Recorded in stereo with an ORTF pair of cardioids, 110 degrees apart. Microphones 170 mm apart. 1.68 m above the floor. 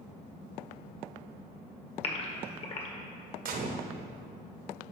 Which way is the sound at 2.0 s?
35° left.